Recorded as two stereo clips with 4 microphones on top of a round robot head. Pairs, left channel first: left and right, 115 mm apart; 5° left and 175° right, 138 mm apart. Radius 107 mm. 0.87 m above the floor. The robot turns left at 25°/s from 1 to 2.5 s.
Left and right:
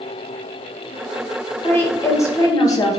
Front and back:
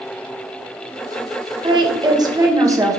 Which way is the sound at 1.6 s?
150° left.